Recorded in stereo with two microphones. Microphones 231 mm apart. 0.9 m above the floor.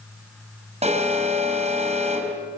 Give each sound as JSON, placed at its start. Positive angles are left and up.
{"t": 0.8, "sound": "an alarm", "side_deg": -30, "distance_m": 5.5}